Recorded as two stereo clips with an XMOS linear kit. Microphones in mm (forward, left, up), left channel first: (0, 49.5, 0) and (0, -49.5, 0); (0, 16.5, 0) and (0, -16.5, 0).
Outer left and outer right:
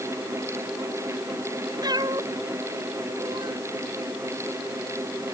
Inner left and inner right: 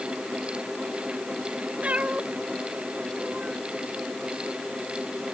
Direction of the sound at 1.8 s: 40° right (ahead or behind).